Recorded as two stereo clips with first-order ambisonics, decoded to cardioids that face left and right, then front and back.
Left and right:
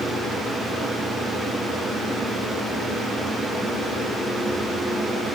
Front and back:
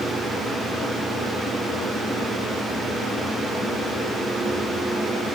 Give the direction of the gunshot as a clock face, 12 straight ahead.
I don't hear a gunshot.